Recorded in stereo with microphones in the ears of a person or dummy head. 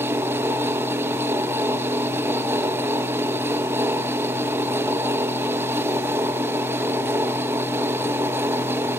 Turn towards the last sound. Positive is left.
turn(degrees=-10)  # may be behind; listen again after turning